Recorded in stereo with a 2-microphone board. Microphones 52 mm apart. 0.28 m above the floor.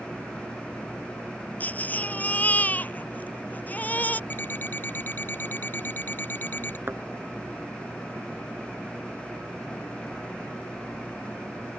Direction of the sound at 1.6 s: 35° left (ahead or behind).